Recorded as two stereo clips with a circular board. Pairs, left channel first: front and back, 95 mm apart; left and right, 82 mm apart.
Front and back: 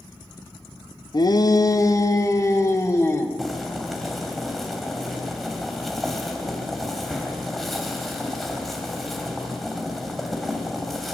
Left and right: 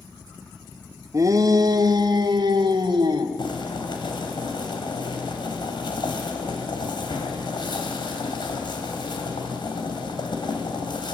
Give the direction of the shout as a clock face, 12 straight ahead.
1 o'clock.